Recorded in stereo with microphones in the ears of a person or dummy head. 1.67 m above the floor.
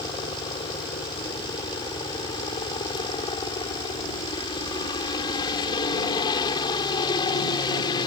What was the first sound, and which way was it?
A helicopter, 25° left (ahead or behind).